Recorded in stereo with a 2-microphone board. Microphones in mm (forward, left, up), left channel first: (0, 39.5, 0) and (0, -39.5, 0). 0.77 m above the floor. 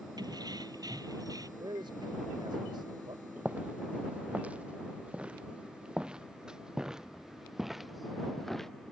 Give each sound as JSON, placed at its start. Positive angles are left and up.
{"t": 0.2, "sound": "keys jangling", "side_deg": -60}
{"t": 1.6, "sound": "a man speaking", "side_deg": -75}
{"t": 3.4, "sound": "footsteps", "side_deg": -20}